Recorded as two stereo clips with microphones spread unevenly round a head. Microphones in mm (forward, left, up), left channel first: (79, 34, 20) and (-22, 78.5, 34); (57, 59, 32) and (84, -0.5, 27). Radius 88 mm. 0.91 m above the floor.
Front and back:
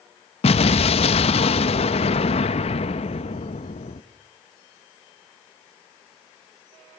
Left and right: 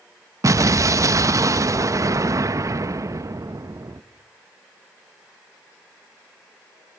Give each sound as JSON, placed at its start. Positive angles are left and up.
{"t": 0.4, "sound": "an explosion", "azimuth_deg": -40, "distance_m": 0.8}